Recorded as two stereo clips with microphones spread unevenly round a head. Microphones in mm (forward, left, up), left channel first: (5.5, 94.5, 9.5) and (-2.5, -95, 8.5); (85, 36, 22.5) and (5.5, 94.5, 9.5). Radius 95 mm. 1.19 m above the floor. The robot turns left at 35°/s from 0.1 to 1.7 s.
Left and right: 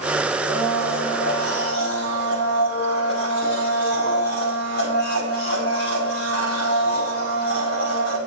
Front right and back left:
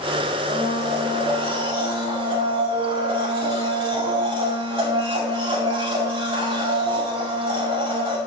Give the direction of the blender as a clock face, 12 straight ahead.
7 o'clock.